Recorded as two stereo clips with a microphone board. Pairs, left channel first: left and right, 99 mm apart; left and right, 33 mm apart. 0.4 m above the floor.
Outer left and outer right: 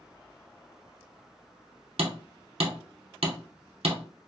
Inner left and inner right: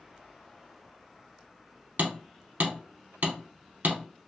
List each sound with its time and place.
2.0 s hammering: 75° right (ahead or behind), 0.7 m